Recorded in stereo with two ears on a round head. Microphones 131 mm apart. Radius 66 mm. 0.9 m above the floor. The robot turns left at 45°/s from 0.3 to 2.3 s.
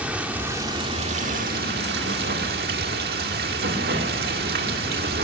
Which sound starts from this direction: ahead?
Running water, at 0.0 s.